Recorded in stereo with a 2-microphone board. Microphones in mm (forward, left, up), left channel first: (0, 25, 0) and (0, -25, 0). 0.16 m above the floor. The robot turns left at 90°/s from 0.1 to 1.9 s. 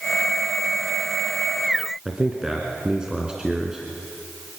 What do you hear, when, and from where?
2.0 s a man speaking: 15° right (ahead or behind), 2 m